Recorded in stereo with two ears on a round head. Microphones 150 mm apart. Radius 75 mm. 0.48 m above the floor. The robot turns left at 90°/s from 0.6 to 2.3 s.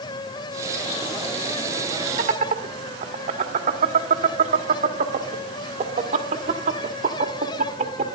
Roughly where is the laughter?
Right.